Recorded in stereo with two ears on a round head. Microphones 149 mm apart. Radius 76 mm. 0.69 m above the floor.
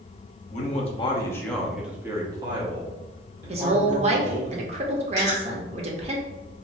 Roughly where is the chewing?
Right.